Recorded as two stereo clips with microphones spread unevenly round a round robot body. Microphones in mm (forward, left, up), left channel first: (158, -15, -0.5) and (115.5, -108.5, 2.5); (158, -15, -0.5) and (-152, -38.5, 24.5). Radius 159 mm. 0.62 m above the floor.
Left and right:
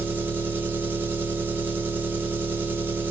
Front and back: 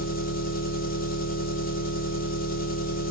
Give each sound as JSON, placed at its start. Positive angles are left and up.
{"t": 0.0, "sound": "an engine running", "azimuth_deg": -45, "distance_m": 1.2}